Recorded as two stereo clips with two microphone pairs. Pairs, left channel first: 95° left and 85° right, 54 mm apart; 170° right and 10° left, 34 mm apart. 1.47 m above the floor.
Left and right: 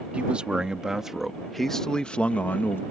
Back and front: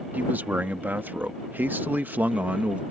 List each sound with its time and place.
0.1 s a man speaking: 15° right; by 2.8 s 50° left